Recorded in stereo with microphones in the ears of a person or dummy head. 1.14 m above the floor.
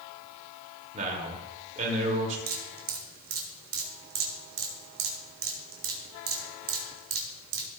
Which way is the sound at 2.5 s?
70° right (ahead or behind).